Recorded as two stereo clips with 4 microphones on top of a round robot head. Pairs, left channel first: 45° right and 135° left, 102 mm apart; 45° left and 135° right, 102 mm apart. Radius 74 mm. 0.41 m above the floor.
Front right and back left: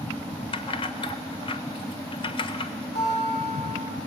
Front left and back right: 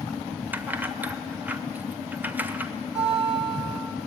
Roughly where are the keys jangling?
Ahead right.